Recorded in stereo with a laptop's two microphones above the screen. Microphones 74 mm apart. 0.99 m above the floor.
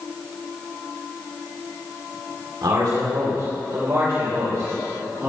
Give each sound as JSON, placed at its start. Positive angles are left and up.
{"t": 2.6, "sound": "a man speaking", "side_deg": -70, "distance_m": 2.5}